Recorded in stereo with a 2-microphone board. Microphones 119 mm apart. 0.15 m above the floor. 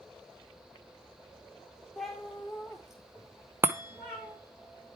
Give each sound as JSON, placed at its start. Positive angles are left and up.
{"t": 2.0, "sound": "a cat meowing", "side_deg": 0, "distance_m": 1.6}
{"t": 3.6, "sound": "a chime", "side_deg": -20, "distance_m": 0.6}